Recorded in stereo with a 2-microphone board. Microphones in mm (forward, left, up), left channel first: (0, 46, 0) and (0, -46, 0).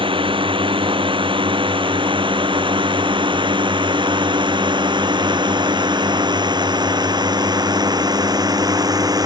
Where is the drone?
70° right (ahead or behind); by 9.3 s 45° right (ahead or behind).